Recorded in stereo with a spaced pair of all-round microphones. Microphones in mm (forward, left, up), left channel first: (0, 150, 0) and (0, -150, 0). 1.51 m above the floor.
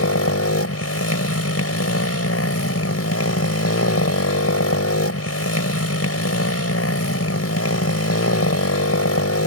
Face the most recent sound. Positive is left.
turn(degrees=55)  # may be behind; listen again after turning